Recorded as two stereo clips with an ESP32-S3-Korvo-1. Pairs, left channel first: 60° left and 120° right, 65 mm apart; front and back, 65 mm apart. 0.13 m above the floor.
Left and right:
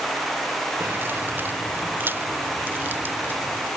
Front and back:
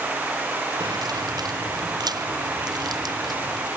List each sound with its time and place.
0.8 s keys jangling: straight behind; by 3.7 s 175° left